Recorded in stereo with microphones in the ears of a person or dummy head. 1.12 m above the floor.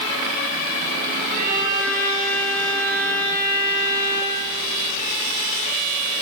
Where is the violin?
50° right (ahead or behind), 4 m.